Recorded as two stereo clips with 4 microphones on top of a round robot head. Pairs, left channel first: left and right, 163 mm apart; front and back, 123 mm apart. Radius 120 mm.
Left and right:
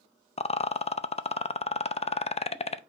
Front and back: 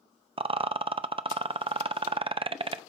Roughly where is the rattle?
Behind left.